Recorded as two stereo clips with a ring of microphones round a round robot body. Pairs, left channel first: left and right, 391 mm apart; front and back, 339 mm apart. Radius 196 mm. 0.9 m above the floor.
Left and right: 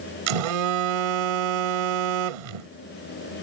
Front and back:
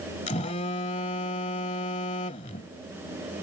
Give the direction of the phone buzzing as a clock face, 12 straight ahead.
2 o'clock.